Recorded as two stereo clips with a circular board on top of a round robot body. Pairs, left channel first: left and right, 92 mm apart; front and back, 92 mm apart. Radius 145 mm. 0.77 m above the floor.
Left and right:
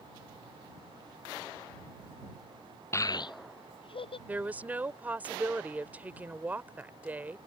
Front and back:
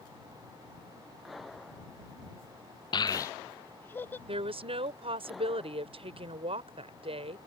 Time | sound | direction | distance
2.9 | a child speaking | 30° left | ?
4.3 | a woman speaking | 165° right | ?